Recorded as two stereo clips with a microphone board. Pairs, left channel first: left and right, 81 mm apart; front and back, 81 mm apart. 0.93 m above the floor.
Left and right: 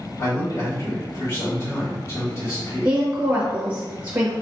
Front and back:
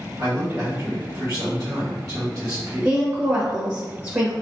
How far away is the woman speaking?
About 0.8 m.